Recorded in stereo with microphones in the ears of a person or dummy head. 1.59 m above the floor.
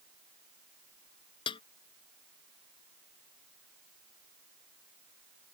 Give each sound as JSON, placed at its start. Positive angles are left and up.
{"t": 1.5, "sound": "a snare drum", "side_deg": 25}